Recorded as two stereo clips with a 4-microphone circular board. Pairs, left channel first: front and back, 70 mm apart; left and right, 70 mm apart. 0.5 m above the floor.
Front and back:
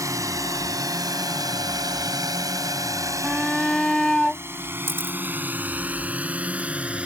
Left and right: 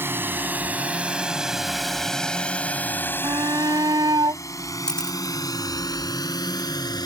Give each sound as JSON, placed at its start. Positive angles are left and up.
{"t": 0.0, "sound": "a drone", "azimuth_deg": -145}
{"t": 3.2, "sound": "a shout", "azimuth_deg": -85}
{"t": 4.9, "sound": "a camera shutter", "azimuth_deg": 160}